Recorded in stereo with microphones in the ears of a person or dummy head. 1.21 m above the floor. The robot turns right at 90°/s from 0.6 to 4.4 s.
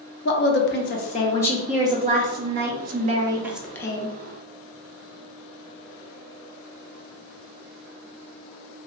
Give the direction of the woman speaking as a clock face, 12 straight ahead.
9 o'clock.